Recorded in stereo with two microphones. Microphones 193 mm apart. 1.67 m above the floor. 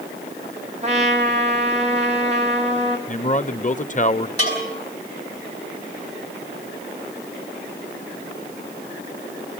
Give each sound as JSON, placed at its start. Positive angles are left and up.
{"t": 0.8, "sound": "a trumpet", "side_deg": -35, "distance_m": 3.0}
{"t": 3.1, "sound": "a man speaking", "side_deg": 40, "distance_m": 1.1}
{"t": 4.4, "sound": "a bell", "side_deg": 35, "distance_m": 8.0}